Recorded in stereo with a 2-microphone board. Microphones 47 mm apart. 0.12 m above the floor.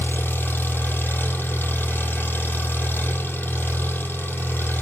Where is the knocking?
I don't hear knocking.